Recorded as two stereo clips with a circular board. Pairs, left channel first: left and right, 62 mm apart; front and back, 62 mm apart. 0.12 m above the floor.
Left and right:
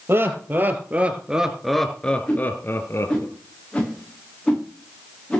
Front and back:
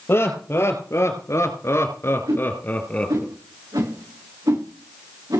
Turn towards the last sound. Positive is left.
turn(degrees=165)